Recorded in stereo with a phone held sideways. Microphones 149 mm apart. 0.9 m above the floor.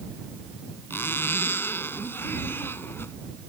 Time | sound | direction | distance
0.9 | a zipper | 15° left (ahead or behind) | ?